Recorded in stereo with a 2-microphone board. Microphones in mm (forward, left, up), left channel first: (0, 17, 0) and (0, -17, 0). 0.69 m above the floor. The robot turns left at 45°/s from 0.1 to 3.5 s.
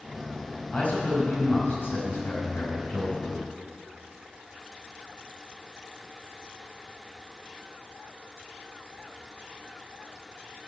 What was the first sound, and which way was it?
A man speaking, 150° left.